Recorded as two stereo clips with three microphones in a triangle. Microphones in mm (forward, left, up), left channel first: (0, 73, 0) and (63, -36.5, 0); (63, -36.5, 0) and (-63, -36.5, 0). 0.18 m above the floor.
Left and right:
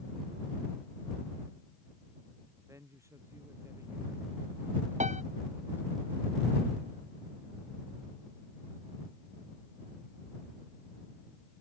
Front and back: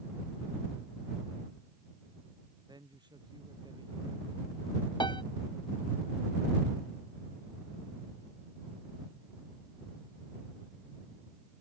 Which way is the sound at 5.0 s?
50° right.